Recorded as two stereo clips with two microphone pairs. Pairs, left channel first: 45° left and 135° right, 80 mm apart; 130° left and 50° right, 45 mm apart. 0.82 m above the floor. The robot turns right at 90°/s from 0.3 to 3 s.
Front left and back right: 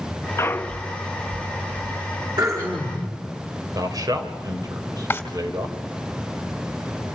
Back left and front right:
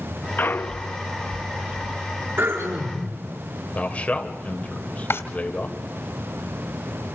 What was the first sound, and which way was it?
A clunk, 100° left.